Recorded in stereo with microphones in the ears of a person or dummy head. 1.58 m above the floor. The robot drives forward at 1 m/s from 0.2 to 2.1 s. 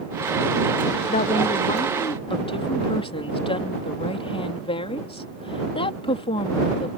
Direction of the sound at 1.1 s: 40° left (ahead or behind).